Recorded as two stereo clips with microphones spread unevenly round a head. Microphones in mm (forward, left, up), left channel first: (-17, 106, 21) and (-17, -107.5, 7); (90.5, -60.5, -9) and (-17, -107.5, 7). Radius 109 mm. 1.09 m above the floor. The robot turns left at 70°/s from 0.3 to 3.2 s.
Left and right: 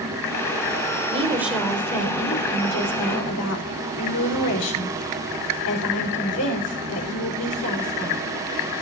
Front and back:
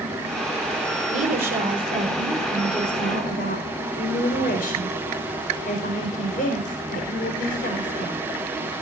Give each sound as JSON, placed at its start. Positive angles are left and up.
{"t": 1.1, "sound": "a woman speaking", "azimuth_deg": -150, "distance_m": 4.5}